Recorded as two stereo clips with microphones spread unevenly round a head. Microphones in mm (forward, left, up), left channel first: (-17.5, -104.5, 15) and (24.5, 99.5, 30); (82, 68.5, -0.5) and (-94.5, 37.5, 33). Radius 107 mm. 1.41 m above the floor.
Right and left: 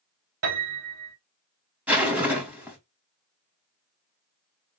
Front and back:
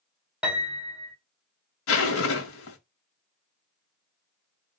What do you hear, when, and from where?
0.4 s a piano: 110° left, 2.0 m
1.9 s a zipper: 5° right, 1.0 m